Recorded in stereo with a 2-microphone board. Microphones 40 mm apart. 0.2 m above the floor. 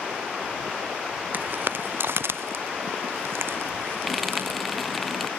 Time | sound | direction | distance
1.3 | footsteps | 50° right (ahead or behind) | ?
4.1 | frying | centre (ahead or behind) | ?